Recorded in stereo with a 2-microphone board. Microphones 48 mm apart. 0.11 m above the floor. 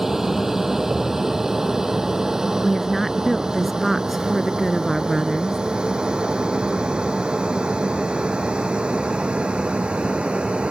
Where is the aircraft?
5° right (ahead or behind); by 10.7 s 20° right (ahead or behind).